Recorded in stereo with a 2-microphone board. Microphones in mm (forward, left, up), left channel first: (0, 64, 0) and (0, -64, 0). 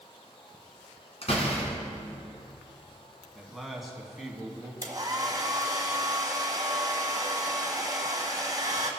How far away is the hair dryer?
About 1.5 m.